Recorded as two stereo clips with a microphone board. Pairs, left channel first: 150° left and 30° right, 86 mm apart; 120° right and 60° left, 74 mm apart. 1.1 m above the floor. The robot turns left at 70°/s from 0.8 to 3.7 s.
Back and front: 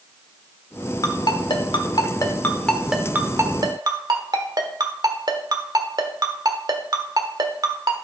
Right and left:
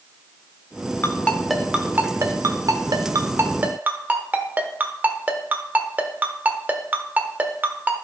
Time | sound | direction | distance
1.0 | a ringtone | 175° right | 1.2 m